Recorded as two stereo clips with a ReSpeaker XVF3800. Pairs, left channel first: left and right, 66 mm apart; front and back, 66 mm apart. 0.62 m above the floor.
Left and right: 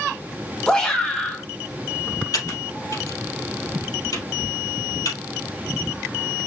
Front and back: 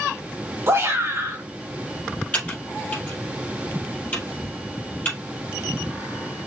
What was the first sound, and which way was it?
A shout, 160° left.